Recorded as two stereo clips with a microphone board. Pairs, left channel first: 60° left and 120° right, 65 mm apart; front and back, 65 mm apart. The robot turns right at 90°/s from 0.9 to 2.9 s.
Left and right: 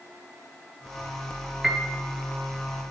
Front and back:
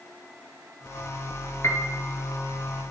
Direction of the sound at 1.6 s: 35° right.